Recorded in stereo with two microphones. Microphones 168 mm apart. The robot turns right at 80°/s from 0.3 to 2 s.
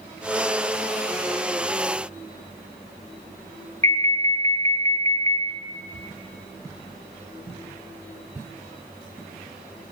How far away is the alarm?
About 0.7 m.